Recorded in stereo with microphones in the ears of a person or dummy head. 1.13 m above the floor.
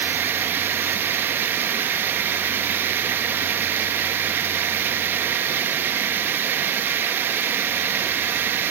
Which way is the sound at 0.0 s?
15° right (ahead or behind).